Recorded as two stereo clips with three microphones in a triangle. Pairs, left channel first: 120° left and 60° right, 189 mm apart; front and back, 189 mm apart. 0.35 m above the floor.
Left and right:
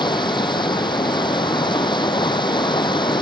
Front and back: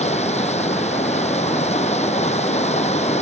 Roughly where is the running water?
Ahead left.